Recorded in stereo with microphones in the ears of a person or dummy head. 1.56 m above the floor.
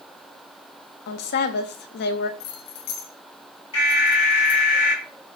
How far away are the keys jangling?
About 0.7 m.